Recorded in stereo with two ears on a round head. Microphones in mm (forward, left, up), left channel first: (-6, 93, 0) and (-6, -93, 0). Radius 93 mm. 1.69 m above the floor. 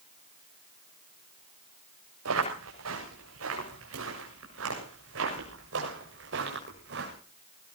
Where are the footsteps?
80° right, 8 m; by 7.1 s 60° right (ahead or behind), 7.5 m.